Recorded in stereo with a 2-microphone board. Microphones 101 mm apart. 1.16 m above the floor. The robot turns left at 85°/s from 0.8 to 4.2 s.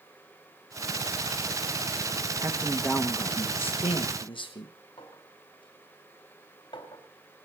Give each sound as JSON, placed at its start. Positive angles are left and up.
{"t": 2.4, "sound": "a man speaking", "azimuth_deg": -145, "distance_m": 1.3}
{"t": 5.0, "sound": "a clink", "side_deg": 50, "distance_m": 3.0}